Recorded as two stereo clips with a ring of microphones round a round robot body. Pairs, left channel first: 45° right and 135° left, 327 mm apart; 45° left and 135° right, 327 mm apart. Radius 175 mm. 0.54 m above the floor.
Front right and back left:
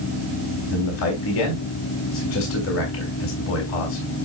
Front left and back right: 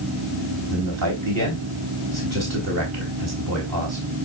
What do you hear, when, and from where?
0.7 s a man speaking: 95° right, 3.5 m